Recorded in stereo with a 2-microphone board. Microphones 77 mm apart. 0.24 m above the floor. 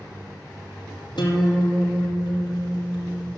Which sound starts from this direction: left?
A guitar, at 1.2 s.